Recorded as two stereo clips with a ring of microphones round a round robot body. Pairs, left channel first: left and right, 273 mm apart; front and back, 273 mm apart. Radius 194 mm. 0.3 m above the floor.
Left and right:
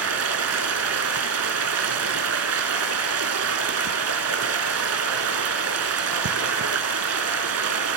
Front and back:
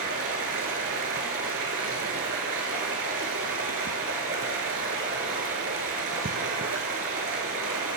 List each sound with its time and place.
0.0 s running water: 120° right, 0.8 m